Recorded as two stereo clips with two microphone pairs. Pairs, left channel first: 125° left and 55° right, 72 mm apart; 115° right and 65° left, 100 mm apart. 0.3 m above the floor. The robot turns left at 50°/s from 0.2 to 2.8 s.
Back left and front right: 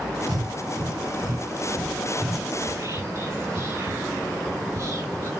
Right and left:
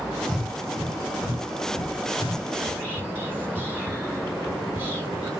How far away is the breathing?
About 5 m.